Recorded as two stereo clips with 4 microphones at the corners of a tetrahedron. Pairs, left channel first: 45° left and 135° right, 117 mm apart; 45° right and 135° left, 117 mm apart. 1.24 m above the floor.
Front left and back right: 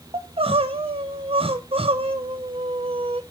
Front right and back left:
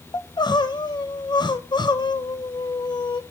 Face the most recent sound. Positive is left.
turn(degrees=-95)